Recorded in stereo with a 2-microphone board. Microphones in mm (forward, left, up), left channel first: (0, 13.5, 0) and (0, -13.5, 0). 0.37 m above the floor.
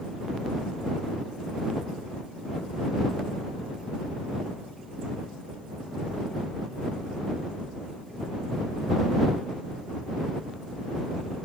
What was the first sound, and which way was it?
Only background noise.